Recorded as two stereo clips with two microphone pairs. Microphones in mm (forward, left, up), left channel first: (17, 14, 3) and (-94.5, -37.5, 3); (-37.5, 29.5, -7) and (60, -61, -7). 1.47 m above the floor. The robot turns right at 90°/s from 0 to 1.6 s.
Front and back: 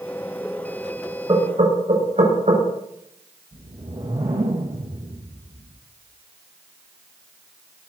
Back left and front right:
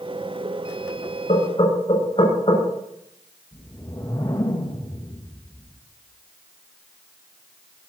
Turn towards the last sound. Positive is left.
turn(degrees=-170)